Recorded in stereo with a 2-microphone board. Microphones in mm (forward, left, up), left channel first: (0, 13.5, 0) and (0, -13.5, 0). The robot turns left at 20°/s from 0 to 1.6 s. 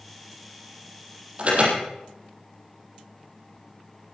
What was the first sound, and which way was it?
An alarm, 45° right (ahead or behind).